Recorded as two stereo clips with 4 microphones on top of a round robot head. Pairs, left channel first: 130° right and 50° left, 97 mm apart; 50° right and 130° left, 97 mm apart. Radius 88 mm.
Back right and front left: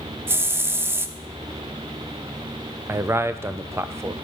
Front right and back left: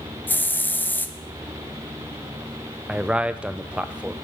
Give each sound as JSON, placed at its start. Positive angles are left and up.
{"t": 0.3, "sound": "a hiss", "azimuth_deg": 5, "distance_m": 0.6}
{"t": 2.9, "sound": "a man speaking", "azimuth_deg": 70, "distance_m": 0.5}